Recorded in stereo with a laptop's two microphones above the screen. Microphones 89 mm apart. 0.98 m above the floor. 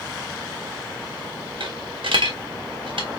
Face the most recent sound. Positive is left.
turn(degrees=-70)  # may be behind; listen again after turning